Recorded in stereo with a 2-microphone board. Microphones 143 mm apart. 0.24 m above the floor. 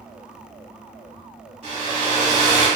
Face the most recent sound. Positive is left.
turn(degrees=-45)  # may be behind; listen again after turning